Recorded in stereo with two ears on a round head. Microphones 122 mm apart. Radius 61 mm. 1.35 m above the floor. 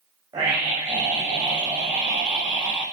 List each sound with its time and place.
0.3 s a scream: 30° right (ahead or behind), 8 m; by 2.8 s 15° right (ahead or behind), 10.5 m